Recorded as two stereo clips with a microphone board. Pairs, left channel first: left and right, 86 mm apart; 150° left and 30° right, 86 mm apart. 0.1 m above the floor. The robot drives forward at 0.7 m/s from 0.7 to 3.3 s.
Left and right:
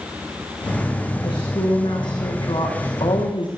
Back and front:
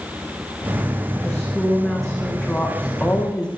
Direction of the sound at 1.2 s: 60° left.